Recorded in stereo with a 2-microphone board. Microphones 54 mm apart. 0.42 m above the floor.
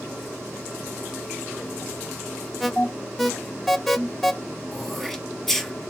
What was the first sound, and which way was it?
An alarm, centre (ahead or behind).